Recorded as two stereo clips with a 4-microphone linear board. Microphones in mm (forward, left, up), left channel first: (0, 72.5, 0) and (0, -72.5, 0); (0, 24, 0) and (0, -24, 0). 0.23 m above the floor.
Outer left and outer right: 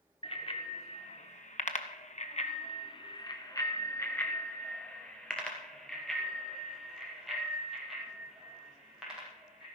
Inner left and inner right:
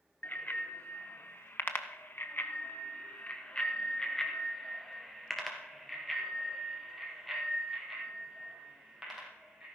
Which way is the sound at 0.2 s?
45° left (ahead or behind).